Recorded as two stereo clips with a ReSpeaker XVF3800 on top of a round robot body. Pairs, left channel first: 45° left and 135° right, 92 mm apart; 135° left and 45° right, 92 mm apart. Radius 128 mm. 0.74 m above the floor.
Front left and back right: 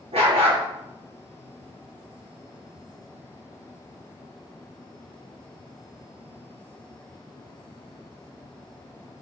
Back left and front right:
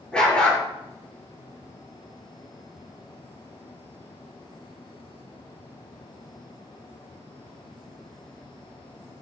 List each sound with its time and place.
0.1 s a dog barking: 145° right, 5 m